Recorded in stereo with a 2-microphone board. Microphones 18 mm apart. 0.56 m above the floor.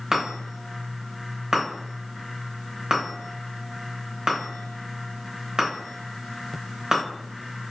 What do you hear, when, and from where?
0.1 s a chime: 45° right (ahead or behind), 1.2 m